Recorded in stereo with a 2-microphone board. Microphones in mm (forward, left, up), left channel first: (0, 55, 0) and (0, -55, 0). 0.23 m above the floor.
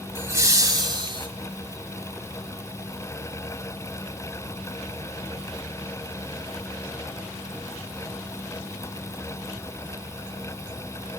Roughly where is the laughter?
Centre.